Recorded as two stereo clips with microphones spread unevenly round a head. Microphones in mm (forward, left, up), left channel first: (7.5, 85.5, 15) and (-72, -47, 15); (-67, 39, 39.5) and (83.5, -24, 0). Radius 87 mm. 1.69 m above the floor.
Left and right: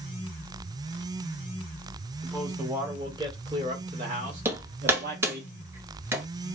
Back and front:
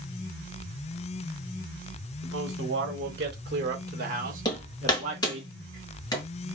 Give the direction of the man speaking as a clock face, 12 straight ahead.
1 o'clock.